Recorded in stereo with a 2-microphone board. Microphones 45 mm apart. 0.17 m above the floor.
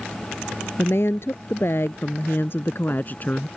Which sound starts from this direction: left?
A woman speaking, at 0.8 s.